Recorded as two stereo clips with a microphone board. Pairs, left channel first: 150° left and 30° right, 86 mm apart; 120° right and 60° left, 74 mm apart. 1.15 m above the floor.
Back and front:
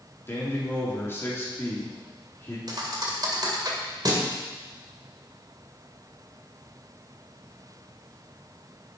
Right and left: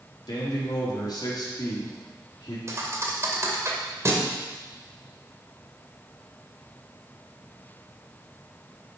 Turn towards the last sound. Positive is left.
turn(degrees=10)